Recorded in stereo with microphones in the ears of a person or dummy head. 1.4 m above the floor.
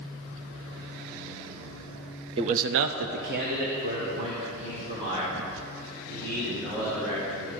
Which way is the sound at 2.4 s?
30° right (ahead or behind).